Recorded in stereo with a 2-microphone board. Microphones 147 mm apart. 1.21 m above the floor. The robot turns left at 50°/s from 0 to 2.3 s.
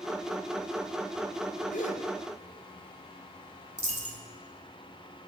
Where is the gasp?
65° left (ahead or behind), 1.1 m; by 2.0 s 45° left (ahead or behind), 1.1 m.